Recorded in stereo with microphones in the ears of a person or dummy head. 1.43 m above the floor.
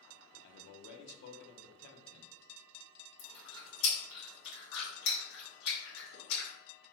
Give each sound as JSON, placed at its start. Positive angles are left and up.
{"t": 0.4, "sound": "a man speaking", "side_deg": 65, "distance_m": 0.7}
{"t": 3.2, "sound": "chewing", "side_deg": 60, "distance_m": 1.3}